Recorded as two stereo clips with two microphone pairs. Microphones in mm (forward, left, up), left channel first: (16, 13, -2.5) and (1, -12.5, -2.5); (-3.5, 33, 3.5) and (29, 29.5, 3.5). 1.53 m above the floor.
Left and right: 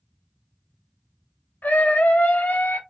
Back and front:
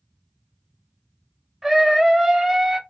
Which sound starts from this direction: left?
A scream, at 1.6 s.